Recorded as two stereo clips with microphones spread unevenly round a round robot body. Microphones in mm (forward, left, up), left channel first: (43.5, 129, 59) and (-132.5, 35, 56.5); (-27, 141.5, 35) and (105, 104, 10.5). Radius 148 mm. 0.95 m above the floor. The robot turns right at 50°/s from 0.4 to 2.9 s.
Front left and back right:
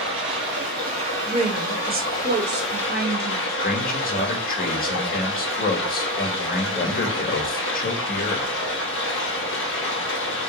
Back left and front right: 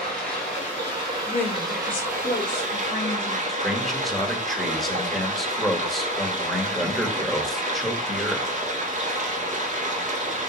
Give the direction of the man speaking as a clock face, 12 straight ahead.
10 o'clock.